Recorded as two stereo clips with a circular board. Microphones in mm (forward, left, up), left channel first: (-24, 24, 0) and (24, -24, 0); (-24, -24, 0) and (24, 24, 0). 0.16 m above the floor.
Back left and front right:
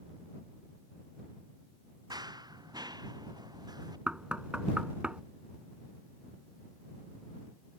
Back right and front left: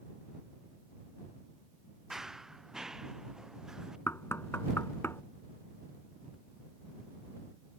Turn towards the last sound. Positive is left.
turn(degrees=-110)